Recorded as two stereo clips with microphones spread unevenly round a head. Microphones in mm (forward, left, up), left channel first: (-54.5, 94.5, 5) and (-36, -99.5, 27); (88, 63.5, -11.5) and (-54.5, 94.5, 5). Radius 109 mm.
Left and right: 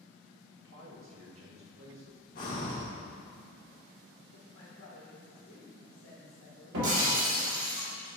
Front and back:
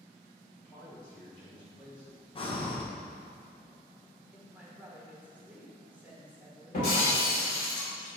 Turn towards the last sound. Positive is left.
turn(degrees=-70)